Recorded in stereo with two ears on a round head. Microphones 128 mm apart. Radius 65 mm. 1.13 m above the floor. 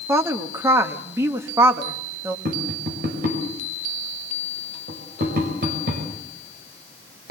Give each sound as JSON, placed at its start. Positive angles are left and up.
{"t": 0.1, "sound": "a woman speaking", "side_deg": -20, "distance_m": 1.6}
{"t": 2.5, "sound": "tapping", "side_deg": -65, "distance_m": 5.5}